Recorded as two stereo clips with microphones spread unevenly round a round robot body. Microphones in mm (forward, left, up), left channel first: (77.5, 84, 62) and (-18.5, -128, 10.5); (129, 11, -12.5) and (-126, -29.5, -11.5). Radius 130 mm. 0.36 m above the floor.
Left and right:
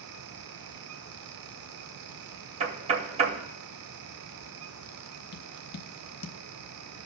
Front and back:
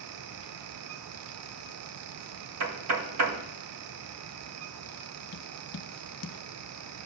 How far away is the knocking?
About 0.8 m.